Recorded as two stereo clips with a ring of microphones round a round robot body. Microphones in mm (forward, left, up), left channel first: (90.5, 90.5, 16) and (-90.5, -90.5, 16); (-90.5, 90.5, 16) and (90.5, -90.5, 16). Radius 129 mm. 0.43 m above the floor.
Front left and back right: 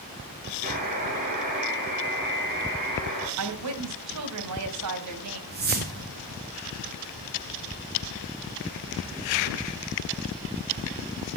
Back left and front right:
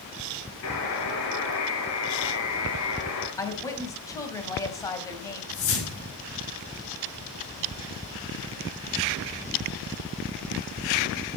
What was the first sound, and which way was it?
A buzzer, 165° left.